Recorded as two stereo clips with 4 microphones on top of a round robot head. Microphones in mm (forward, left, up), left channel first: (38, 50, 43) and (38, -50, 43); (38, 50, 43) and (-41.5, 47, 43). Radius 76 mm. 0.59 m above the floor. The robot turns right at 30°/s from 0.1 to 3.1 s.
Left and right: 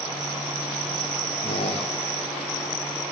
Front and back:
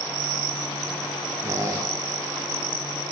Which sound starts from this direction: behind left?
A squeak, at 1.4 s.